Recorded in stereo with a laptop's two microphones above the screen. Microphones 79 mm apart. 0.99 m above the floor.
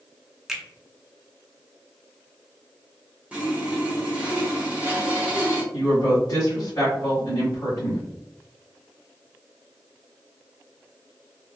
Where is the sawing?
15° right (ahead or behind), 0.7 m.